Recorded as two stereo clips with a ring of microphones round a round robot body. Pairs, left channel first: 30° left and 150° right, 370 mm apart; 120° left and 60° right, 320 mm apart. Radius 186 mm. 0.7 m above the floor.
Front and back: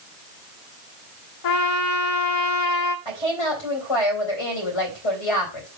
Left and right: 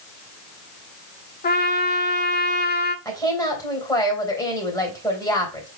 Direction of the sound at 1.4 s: 60° left.